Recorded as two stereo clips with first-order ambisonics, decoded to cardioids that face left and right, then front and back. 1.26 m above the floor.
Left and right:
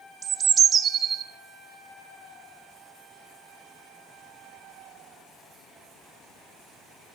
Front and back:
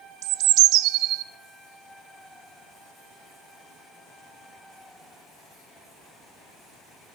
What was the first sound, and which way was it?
A bird, 155° right.